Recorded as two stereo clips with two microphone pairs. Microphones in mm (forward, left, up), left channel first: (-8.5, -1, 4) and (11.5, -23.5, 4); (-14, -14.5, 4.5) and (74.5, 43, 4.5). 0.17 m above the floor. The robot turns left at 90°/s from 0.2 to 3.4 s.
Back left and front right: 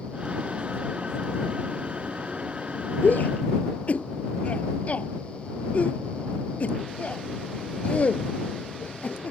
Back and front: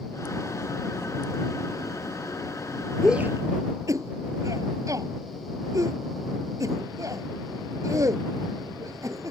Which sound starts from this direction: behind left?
A shout, at 3.0 s.